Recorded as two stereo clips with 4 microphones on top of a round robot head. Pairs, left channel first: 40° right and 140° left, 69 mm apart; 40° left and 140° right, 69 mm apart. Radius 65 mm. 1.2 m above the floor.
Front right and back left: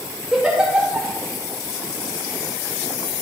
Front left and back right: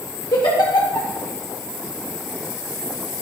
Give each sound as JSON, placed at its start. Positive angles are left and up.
{"t": 0.3, "sound": "a giggle", "azimuth_deg": 65, "distance_m": 2.0}